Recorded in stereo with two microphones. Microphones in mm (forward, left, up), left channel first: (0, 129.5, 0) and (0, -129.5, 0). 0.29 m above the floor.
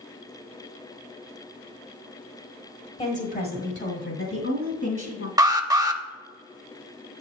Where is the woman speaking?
25° left (ahead or behind), 1.3 m; by 5.3 s 60° left (ahead or behind), 2.5 m.